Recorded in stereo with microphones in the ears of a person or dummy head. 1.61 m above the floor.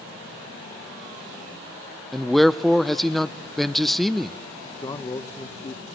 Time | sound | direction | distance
2.1 | a man speaking | 5° left (ahead or behind) | 0.7 m
4.8 | a man speaking | 25° left (ahead or behind) | 1.2 m